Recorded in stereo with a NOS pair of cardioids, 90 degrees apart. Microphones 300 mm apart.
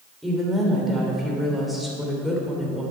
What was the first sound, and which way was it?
A woman speaking, straight ahead.